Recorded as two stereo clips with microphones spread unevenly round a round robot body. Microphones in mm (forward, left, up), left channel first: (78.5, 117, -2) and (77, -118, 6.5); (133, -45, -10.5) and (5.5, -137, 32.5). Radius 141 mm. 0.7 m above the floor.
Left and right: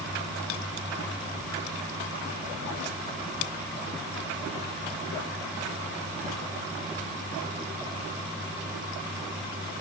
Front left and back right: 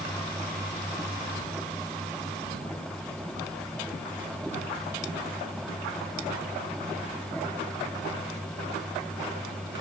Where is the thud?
I don't hear a thud.